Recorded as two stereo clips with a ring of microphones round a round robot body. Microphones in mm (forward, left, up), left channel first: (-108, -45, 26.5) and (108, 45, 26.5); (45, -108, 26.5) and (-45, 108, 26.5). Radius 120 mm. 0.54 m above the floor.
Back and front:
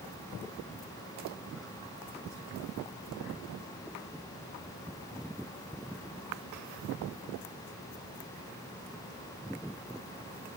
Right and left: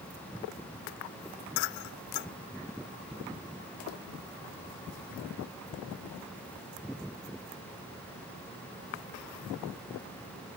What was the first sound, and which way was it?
Only background noise.